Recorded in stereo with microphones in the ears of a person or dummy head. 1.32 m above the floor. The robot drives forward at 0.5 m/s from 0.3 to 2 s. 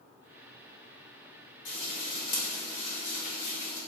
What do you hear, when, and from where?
1.6 s frying: 60° left (ahead or behind), 1.8 m; by 3.8 s 55° left (ahead or behind), 1.9 m